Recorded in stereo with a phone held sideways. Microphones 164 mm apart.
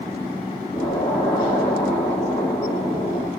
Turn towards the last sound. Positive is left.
turn(degrees=15)  # may be behind; listen again after turning